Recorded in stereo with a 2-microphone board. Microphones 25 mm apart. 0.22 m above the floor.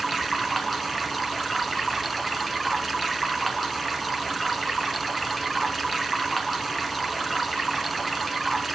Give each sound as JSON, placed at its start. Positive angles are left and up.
{"t": 0.0, "sound": "running water", "side_deg": 5, "distance_m": 2.0}